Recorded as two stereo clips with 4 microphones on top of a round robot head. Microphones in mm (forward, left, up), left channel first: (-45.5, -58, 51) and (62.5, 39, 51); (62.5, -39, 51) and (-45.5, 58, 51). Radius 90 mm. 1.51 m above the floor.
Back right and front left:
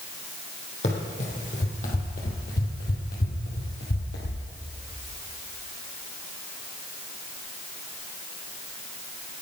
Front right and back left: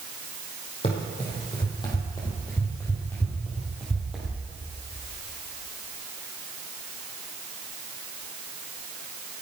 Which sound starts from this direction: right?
Running footsteps, at 0.8 s.